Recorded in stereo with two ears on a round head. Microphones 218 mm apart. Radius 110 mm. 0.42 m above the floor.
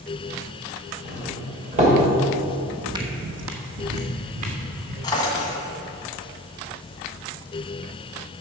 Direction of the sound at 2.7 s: Centre (ahead or behind).